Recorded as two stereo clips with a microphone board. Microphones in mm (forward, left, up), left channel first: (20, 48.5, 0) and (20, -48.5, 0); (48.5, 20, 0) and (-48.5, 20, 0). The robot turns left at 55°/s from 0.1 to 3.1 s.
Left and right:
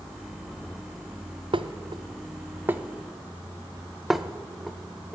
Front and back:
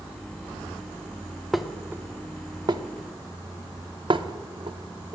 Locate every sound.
1.5 s dishes clattering: 90° right, 0.5 m; by 5.2 s 175° right, 0.5 m